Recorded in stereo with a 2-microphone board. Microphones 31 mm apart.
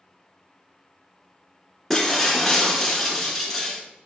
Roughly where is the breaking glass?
Centre.